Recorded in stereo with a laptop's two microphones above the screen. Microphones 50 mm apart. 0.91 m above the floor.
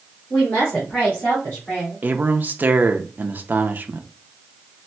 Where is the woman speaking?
35° left (ahead or behind), 1.8 m; by 2.0 s 20° left (ahead or behind), 2.5 m.